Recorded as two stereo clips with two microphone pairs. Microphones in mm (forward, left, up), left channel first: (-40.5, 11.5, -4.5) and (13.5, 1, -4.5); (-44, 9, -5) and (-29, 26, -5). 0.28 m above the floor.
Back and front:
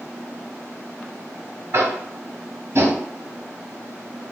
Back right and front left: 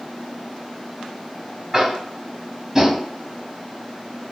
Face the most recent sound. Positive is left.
turn(degrees=-10)